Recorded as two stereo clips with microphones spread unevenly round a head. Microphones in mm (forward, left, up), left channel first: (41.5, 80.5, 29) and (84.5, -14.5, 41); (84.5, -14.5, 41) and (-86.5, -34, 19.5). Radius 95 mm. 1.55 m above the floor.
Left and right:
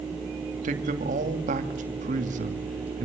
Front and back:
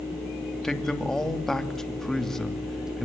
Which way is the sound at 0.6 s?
80° right.